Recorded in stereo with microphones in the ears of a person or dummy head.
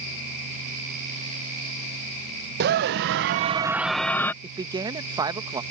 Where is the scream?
55° right (ahead or behind); by 4.3 s 15° left (ahead or behind).